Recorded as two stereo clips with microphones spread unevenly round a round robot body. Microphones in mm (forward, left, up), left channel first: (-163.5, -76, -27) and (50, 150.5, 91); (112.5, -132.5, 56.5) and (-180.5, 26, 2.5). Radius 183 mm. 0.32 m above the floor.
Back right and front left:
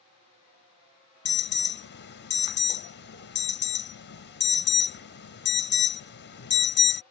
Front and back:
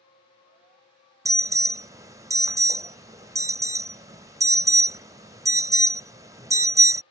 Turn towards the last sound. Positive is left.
turn(degrees=-140)